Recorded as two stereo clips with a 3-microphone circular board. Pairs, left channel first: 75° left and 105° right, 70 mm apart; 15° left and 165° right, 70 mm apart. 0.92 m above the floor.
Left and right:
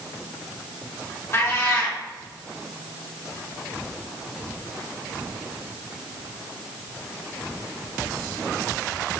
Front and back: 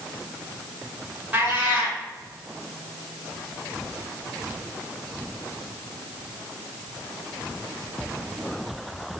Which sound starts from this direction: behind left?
A cat meowing, at 1.3 s.